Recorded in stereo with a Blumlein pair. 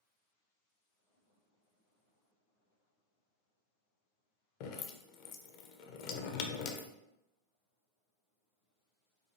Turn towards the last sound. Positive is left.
turn(degrees=40)